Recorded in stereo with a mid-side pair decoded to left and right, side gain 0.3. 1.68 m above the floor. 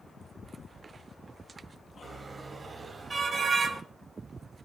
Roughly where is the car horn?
Ahead right.